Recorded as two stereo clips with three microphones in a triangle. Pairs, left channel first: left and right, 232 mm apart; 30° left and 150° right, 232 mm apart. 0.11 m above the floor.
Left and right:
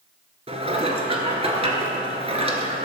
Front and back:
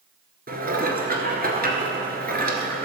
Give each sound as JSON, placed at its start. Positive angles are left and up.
{"t": 0.5, "sound": "dishes clattering", "azimuth_deg": -140, "distance_m": 1.2}